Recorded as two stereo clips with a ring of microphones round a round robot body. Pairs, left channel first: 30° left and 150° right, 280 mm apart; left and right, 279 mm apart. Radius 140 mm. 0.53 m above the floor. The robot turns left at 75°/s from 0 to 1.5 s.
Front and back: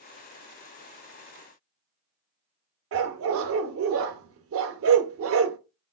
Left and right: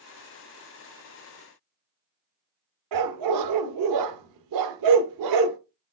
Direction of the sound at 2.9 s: 105° right.